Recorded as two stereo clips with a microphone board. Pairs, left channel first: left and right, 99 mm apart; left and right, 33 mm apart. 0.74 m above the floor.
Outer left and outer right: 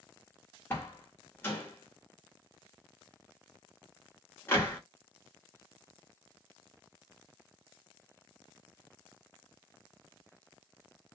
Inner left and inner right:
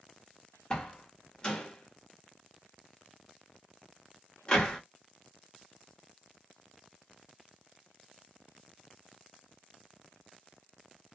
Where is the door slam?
25° left (ahead or behind), 1.2 m.